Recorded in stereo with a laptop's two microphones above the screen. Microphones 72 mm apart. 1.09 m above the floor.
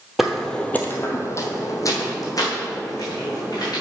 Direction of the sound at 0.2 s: 5° right (ahead or behind).